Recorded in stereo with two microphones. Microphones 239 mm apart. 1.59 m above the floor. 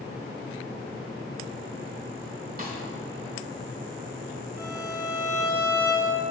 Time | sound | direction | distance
2.6 | a snare drum | 40° right (ahead or behind) | 1.8 m
4.6 | a violin | 10° right (ahead or behind) | 3 m